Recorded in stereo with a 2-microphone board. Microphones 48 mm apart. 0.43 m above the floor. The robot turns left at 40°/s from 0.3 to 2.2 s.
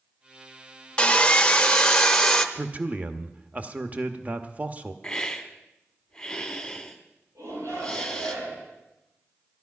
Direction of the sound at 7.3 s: 80° right.